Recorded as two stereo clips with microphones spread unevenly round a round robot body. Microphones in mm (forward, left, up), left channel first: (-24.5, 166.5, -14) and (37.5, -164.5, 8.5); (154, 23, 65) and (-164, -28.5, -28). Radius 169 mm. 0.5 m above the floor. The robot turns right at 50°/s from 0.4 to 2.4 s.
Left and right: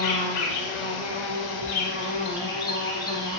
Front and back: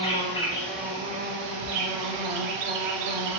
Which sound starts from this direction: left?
An insect, at 0.0 s.